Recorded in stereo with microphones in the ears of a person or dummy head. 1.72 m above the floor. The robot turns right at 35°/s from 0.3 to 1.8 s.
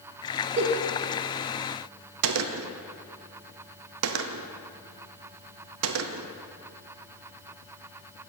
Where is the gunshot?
80° right, 0.6 m.